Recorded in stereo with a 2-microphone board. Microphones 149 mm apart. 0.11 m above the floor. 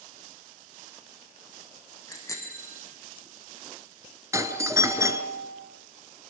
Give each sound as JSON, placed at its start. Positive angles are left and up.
{"t": 2.1, "sound": "a bicycle bell", "side_deg": 20, "distance_m": 4.0}
{"t": 4.3, "sound": "a doorbell", "side_deg": -20, "distance_m": 1.6}